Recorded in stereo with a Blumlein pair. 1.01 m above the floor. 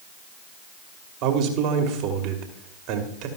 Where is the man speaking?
40° right, 2.5 m.